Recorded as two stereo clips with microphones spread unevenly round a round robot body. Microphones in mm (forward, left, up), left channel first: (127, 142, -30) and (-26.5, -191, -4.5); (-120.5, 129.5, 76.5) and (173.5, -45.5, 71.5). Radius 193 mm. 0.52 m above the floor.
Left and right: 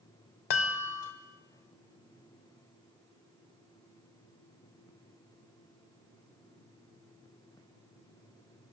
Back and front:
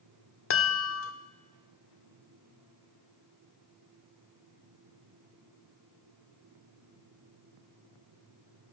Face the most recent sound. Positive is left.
turn(degrees=95)